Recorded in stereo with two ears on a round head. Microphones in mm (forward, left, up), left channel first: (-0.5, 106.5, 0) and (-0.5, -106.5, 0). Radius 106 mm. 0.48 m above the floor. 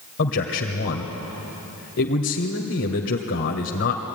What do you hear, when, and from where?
0.2 s a man speaking: 55° left (ahead or behind), 1.7 m